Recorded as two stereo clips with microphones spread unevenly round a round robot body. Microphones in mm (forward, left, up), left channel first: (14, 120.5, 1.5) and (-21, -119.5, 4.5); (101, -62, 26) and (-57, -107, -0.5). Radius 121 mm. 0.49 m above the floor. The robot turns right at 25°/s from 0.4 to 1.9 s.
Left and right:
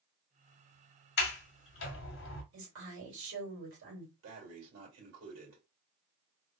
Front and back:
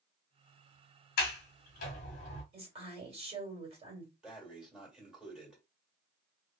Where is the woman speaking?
125° right, 2 m.